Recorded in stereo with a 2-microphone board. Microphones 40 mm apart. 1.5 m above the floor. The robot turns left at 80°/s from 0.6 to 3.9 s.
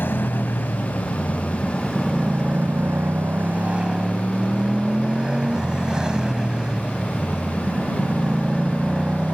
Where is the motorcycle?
105° left; by 9.3 s 160° right.